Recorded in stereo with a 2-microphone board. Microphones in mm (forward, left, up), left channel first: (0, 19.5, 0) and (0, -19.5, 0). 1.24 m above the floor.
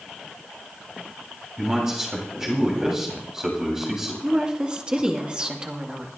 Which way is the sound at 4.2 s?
20° right (ahead or behind).